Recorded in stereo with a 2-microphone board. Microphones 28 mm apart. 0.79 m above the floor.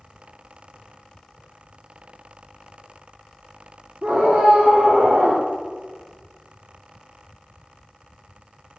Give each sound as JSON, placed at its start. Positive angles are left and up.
{"t": 4.0, "sound": "a scream", "side_deg": -65, "distance_m": 2.0}